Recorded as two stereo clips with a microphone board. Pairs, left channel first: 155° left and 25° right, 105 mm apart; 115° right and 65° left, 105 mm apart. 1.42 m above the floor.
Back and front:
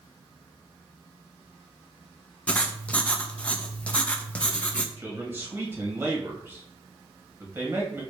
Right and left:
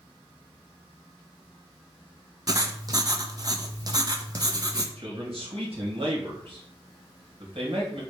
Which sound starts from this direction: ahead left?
A man speaking, at 5.0 s.